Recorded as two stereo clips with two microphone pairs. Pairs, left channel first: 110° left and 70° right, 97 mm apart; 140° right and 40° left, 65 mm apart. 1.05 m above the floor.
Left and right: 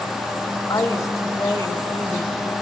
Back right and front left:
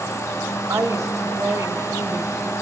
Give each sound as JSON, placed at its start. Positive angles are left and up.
{"t": 0.7, "sound": "a woman speaking", "azimuth_deg": 60, "distance_m": 1.3}